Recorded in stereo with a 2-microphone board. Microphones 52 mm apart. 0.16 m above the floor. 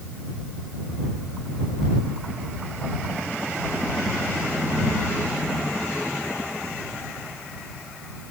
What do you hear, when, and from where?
Only background noise.